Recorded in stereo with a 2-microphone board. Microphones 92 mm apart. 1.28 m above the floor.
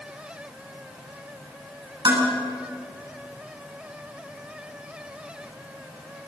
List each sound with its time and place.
2.0 s dishes clattering: 55° right (ahead or behind), 9 m